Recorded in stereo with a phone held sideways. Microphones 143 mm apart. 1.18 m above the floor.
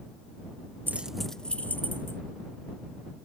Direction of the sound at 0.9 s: 15° right (ahead or behind).